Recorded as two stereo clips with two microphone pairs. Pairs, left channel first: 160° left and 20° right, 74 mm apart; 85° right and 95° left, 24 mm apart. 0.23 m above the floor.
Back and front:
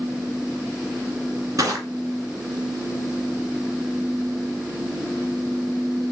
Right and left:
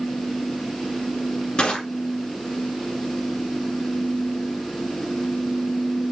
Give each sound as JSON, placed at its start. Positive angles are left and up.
{"t": 1.6, "sound": "crushing", "azimuth_deg": -55, "distance_m": 1.6}